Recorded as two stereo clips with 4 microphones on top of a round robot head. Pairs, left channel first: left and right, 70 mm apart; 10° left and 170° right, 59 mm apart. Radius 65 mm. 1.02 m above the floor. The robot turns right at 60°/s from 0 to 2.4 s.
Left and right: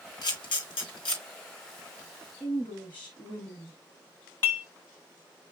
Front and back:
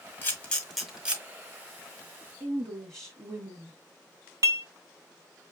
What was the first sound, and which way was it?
A camera shutter, 65° left.